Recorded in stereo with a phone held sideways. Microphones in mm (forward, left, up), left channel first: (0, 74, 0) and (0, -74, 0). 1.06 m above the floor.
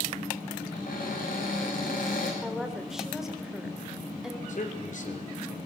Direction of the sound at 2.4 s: 5° right (ahead or behind).